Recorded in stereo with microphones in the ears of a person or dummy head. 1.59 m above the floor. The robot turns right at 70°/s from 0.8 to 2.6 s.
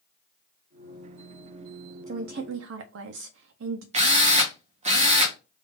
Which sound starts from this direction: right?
A drill, at 3.9 s.